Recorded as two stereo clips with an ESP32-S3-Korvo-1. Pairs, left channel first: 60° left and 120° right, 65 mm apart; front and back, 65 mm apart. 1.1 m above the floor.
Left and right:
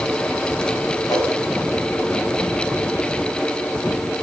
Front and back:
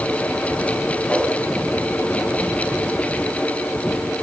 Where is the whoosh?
65° left, 4.5 m.